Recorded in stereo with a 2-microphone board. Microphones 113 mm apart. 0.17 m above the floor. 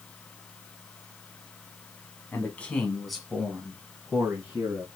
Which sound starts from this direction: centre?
A man speaking, at 2.3 s.